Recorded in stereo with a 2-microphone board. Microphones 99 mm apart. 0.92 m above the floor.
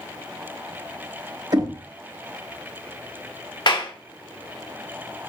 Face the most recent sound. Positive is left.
turn(degrees=55)  # may be behind; listen again after turning